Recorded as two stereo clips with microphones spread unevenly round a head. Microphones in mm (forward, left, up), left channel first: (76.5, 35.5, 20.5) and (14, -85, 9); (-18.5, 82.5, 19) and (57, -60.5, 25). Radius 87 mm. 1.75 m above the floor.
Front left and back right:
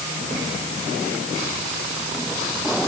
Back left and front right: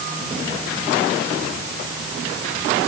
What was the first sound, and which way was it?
Only background noise.